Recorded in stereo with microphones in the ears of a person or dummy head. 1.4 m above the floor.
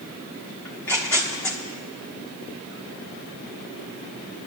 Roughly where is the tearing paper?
Centre.